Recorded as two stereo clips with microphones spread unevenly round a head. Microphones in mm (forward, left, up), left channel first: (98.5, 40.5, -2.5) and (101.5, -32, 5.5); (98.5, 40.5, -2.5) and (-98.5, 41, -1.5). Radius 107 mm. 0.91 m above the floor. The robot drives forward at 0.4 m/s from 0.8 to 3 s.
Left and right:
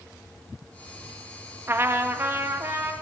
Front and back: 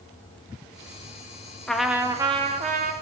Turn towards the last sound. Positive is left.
turn(degrees=-155)